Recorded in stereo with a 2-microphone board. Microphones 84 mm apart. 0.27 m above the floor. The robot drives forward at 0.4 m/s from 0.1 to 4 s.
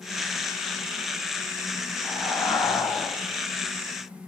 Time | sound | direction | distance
2.0 | breathing | 35° left (ahead or behind) | 1.1 m